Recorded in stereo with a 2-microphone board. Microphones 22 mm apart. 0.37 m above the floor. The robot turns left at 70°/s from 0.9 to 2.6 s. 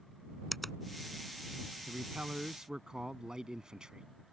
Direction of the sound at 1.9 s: 90° right.